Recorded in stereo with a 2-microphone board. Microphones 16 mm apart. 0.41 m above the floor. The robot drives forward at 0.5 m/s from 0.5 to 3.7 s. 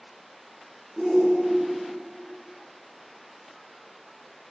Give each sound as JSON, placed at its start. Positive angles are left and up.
{"t": 1.0, "sound": "a shout", "side_deg": -15, "distance_m": 1.3}